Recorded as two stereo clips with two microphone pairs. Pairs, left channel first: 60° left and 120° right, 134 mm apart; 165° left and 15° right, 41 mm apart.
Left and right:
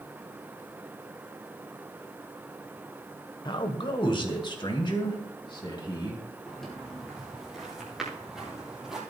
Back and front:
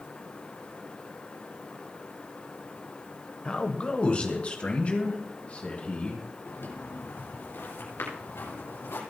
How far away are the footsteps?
About 5.5 m.